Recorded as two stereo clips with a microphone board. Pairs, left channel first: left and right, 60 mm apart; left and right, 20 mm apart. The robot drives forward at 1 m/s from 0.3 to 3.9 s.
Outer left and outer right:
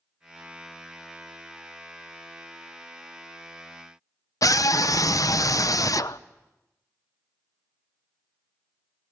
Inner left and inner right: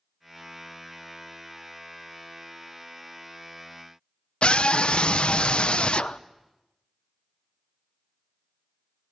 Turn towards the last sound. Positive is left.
turn(degrees=65)  # may be behind; listen again after turning